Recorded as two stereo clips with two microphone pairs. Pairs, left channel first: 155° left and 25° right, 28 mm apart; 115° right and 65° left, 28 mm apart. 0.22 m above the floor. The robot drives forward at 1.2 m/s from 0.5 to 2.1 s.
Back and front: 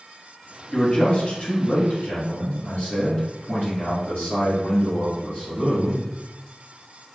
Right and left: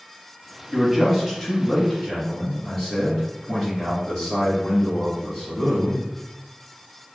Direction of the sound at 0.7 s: 100° left.